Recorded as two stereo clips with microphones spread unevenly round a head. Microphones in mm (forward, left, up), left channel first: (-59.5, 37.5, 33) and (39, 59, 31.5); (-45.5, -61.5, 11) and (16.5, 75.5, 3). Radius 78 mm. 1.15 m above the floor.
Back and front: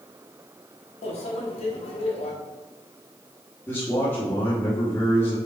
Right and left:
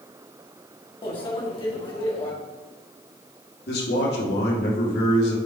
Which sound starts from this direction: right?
A man speaking, at 3.7 s.